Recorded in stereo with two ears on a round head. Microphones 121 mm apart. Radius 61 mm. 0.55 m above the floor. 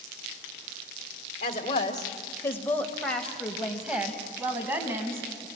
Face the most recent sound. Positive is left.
turn(degrees=-20)  # may be behind; listen again after turning